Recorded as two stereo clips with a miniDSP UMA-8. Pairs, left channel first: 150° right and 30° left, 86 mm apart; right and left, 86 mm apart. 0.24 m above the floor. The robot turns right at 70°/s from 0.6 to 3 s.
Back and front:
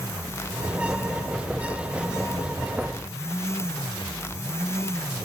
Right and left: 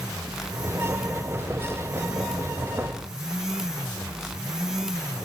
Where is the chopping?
No chopping in this recording.